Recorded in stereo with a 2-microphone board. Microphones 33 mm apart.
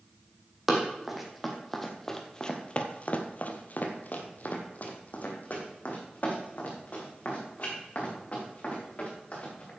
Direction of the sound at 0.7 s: 10° right (ahead or behind).